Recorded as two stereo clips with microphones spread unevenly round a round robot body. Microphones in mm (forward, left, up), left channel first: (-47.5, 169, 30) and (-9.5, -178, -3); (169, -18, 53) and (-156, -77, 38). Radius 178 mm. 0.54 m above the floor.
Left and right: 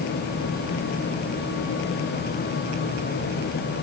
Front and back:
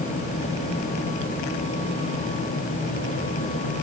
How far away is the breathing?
No breathing in this recording.